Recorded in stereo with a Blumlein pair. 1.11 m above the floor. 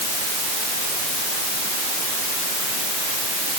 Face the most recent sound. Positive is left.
No sound to turn to.